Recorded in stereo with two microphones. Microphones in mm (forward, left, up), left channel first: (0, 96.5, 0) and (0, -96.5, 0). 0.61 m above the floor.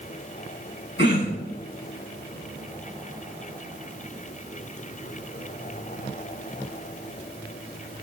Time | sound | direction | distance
1.0 | throat clearing | 80° left | 4.5 m